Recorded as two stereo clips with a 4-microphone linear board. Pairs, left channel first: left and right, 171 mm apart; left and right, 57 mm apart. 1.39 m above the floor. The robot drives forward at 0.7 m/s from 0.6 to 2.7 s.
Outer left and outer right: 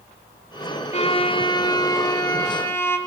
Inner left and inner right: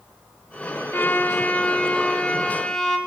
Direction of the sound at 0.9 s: 40° left (ahead or behind).